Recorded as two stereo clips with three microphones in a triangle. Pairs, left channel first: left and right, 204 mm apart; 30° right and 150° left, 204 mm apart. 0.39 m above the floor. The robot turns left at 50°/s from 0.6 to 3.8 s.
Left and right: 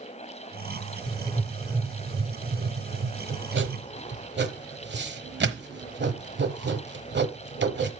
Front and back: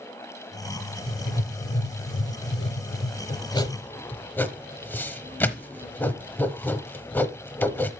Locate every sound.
1.1 s writing: 25° left, 0.9 m; by 7.9 s 110° right, 0.9 m